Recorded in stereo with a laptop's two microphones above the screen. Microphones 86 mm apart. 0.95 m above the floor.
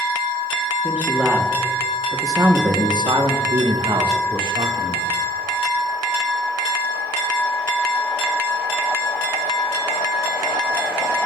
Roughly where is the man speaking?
Centre.